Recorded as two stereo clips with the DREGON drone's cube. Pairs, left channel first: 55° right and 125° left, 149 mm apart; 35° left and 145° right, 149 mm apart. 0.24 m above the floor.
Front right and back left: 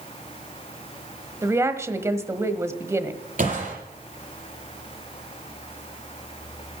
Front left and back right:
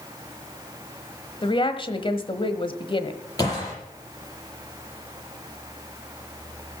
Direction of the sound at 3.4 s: 100° left.